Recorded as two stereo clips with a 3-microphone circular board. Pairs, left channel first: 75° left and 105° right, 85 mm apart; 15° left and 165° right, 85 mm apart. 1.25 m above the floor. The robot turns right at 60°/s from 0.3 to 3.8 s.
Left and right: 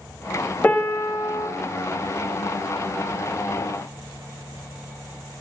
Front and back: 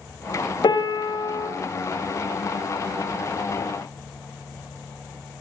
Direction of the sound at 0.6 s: 5° left.